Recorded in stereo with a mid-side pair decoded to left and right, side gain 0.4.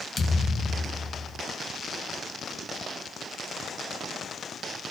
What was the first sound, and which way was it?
A thud, 45° left.